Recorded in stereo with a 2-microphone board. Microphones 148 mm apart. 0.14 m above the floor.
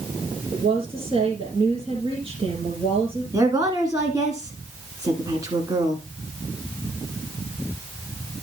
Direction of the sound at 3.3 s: 25° right (ahead or behind).